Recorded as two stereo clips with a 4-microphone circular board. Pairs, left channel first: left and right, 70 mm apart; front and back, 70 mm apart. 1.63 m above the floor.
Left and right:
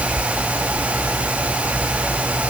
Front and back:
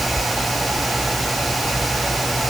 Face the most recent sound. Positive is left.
No sound to turn to.